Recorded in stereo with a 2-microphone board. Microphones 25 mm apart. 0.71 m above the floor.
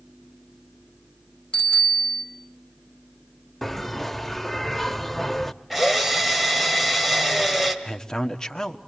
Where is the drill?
5° right (ahead or behind), 2.5 m.